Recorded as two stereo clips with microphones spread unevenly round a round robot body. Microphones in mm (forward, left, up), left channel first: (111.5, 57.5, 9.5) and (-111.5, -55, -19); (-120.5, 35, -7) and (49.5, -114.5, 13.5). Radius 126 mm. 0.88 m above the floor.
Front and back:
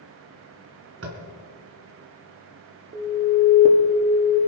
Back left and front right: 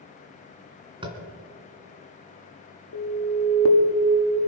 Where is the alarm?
150° left, 1.9 m.